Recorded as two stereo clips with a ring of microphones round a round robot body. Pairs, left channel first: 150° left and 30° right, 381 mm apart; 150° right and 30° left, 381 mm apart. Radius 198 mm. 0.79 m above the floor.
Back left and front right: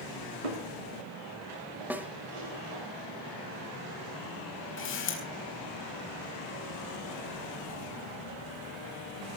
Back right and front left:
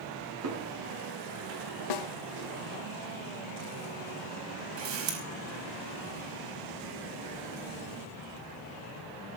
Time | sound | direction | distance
0.4 | footsteps | 25° right | 9 m
1.9 | a snare drum | 115° right | 1.1 m
4.8 | a camera shutter | 90° left | 4.5 m